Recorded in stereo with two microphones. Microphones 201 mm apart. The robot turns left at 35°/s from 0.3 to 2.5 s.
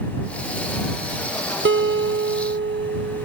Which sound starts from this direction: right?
A guitar, at 1.6 s.